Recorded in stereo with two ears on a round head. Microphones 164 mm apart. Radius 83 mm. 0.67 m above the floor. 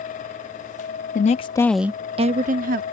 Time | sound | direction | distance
1.1 | a woman speaking | 45° left (ahead or behind) | ?